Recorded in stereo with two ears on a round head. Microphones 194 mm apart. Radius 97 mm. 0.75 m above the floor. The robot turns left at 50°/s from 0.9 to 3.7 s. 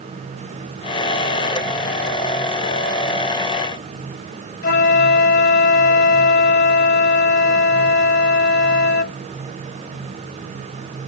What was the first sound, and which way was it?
A flute, 50° left (ahead or behind).